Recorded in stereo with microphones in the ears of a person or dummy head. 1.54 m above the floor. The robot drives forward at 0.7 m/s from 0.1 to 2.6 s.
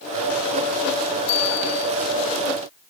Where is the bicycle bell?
60° left (ahead or behind); by 1.9 s 55° left (ahead or behind).